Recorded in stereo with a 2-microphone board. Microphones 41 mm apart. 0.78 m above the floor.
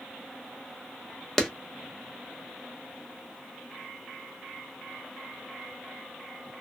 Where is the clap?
10° left (ahead or behind), 0.6 m.